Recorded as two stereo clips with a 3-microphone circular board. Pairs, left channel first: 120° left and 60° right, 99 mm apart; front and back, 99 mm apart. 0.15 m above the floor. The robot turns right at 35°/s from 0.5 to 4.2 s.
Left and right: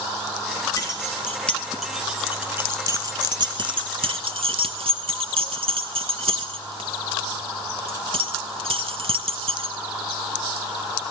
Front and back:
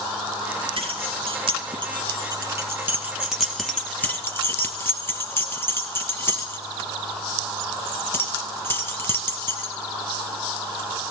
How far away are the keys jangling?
About 1.9 m.